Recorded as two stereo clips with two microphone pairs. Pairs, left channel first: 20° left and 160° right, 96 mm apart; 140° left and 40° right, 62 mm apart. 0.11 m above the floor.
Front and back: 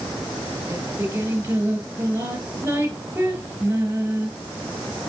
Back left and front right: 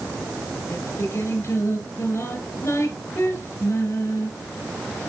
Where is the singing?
135° left, 2.5 m.